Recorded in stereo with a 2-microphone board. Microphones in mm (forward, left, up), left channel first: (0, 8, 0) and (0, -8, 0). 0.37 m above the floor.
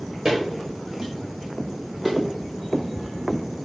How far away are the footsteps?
About 3 m.